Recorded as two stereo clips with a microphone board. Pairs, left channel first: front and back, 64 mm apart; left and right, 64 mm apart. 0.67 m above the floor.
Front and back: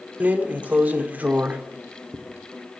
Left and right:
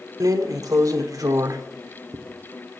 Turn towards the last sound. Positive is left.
turn(degrees=-115)